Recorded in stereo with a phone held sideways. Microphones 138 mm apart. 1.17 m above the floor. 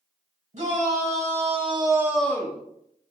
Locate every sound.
0.5 s a shout: 60° right (ahead or behind), 1.6 m; by 2.6 s 40° left (ahead or behind), 0.6 m